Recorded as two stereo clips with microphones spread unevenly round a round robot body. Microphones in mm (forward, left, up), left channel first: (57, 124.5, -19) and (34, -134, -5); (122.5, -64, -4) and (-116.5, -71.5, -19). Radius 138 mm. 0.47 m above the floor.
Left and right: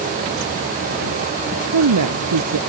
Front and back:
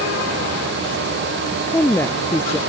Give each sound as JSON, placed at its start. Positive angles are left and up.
{"t": 1.7, "sound": "a woman speaking", "azimuth_deg": -80}